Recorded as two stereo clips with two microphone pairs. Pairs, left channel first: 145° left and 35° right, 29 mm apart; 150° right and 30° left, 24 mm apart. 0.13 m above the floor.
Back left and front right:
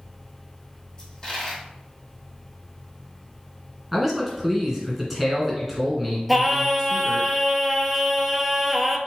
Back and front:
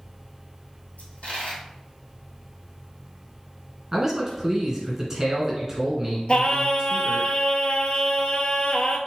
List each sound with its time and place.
1.0 s a dropped coin: 140° right, 2.5 m
3.9 s a man speaking: 35° left, 1.6 m
6.3 s singing: 115° right, 0.6 m